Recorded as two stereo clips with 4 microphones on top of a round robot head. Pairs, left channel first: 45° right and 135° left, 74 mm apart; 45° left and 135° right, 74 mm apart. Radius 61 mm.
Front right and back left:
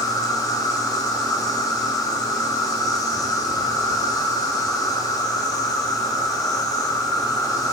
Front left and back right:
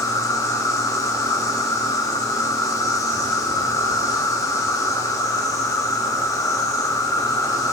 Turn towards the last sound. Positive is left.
turn(degrees=0)